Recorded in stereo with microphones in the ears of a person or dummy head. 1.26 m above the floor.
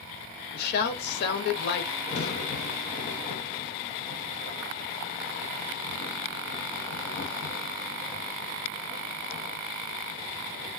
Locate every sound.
0.5 s a woman speaking: 65° left (ahead or behind), 1.1 m
2.1 s a crack: 35° left (ahead or behind), 0.7 m